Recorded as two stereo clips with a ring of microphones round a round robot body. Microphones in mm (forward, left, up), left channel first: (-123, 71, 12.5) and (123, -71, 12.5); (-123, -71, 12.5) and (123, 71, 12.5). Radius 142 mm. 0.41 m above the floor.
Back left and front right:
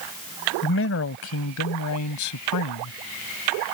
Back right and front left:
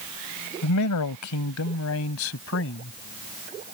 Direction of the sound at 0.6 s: 165° right.